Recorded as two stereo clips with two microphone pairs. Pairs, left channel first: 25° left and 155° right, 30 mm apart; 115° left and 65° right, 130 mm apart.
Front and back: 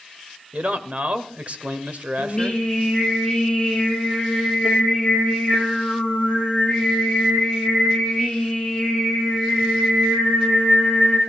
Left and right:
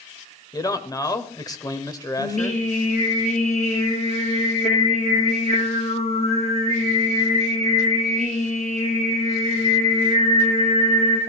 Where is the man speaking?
175° left, 1.6 m.